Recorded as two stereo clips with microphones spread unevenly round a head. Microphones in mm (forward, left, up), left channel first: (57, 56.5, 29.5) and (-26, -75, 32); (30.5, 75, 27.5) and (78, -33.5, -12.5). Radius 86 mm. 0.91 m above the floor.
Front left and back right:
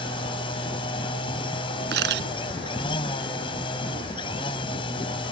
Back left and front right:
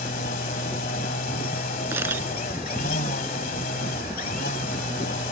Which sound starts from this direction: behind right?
A camera shutter, at 1.9 s.